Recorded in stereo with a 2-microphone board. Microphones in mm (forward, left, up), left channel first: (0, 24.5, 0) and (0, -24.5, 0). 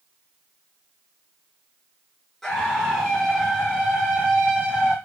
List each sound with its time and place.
2.4 s a scream: 5° left (ahead or behind), 1.9 m; by 5.0 s 15° right (ahead or behind), 1.9 m